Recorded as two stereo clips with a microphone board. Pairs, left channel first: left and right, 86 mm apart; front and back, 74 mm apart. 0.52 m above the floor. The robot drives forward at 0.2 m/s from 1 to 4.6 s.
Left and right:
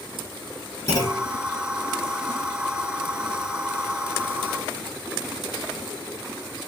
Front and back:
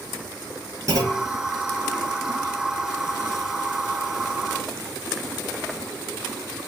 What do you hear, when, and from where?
0.9 s a clunk: 140° left, 3 m